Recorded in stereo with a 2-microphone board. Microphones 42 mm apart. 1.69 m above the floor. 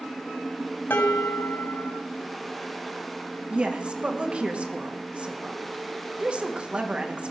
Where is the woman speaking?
30° right (ahead or behind), 2 m.